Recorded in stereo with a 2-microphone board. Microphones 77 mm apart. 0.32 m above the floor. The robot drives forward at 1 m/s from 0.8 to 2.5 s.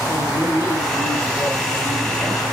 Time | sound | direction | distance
0.1 | a woman speaking | 35° left (ahead or behind) | 2.5 m